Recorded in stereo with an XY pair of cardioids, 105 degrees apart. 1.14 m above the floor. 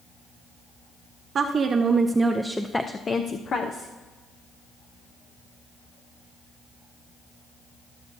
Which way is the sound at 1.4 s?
50° right.